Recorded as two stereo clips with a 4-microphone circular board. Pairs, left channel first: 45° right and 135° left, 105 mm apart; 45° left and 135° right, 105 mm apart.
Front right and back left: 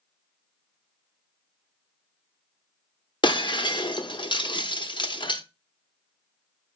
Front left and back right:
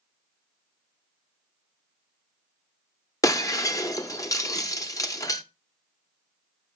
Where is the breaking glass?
10° right, 0.7 m.